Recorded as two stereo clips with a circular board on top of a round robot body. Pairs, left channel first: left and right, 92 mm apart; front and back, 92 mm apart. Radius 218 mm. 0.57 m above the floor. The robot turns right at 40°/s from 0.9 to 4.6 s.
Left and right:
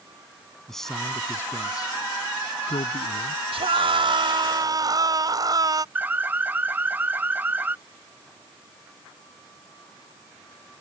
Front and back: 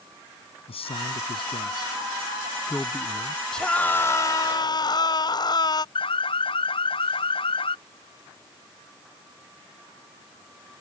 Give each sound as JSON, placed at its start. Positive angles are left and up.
{"t": 0.7, "sound": "a man speaking", "azimuth_deg": 5}
{"t": 3.5, "sound": "a scream", "azimuth_deg": -85}
{"t": 6.0, "sound": "an alarm", "azimuth_deg": -20}